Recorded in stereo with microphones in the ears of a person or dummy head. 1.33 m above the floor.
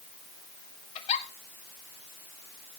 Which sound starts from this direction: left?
A giggle, at 0.9 s.